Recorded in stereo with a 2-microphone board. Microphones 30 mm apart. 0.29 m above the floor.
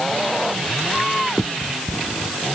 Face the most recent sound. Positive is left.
turn(degrees=0)  # may be behind; listen again after turning